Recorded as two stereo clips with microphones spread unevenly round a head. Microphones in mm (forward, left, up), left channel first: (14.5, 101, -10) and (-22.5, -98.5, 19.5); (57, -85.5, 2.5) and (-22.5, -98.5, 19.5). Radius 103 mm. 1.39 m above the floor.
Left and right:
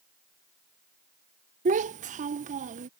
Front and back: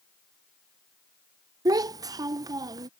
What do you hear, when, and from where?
1.6 s a child speaking: 145° right